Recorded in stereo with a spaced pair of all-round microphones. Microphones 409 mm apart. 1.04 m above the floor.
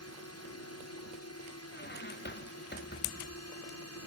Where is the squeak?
25° left (ahead or behind).